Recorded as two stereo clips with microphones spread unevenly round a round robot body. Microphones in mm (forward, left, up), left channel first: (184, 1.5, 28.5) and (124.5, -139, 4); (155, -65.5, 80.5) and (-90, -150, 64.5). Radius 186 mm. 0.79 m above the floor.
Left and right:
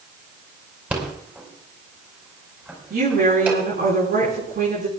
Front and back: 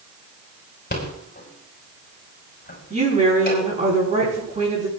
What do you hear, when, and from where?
0.9 s a rattle: 35° right, 5.5 m
2.9 s a woman speaking: 100° right, 8.5 m